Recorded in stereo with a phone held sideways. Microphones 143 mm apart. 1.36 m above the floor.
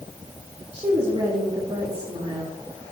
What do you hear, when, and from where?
0.7 s a woman speaking: 40° right (ahead or behind), 2.5 m